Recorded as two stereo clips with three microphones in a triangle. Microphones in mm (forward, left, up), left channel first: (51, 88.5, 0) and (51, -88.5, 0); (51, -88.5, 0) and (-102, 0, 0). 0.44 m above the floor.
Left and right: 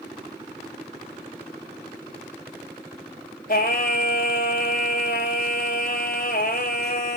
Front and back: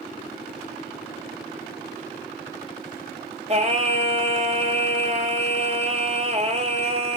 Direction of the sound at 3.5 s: 105° left.